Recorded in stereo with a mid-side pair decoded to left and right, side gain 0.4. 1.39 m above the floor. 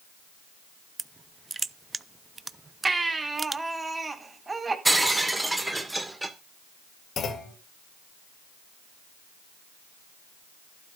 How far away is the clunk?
About 2 m.